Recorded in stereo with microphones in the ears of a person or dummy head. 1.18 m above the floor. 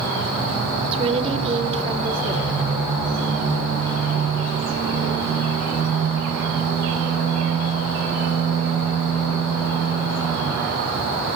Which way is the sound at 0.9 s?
25° right (ahead or behind).